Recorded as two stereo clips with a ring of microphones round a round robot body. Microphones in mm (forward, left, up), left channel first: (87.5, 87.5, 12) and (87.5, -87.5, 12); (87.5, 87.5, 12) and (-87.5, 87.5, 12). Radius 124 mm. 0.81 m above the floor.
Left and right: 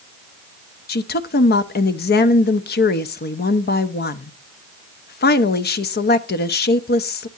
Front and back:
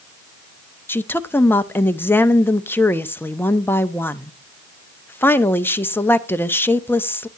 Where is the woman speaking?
75° left, 0.8 m.